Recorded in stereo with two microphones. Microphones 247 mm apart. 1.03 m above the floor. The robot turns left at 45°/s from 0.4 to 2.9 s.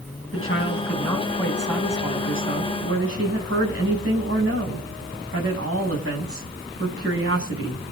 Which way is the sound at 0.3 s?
55° left.